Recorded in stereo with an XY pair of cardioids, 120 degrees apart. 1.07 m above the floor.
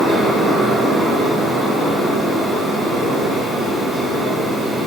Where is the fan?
15° right, 1.7 m.